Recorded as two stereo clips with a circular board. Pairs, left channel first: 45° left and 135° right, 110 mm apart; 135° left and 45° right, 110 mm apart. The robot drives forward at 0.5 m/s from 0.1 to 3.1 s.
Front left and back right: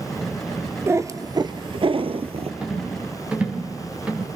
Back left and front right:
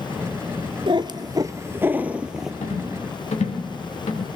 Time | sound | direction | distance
0.9 | a cat meowing | 75° right | 0.9 m
2.6 | a rattle | 145° left | 4 m